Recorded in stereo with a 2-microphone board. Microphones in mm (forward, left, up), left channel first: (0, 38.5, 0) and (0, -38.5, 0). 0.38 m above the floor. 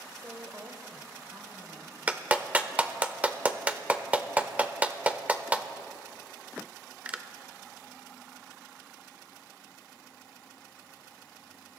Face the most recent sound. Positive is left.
turn(degrees=-20)  # may be behind; listen again after turning